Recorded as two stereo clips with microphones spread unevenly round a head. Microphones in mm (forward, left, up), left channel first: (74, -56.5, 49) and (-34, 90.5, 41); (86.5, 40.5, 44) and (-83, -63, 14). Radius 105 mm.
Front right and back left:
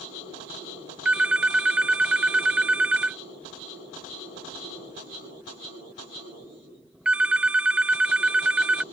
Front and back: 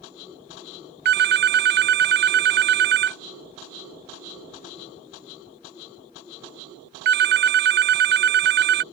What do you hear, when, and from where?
1.1 s a phone ringing: 150° right